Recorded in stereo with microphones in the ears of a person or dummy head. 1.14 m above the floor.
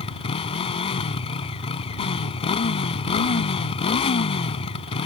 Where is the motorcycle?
30° left (ahead or behind).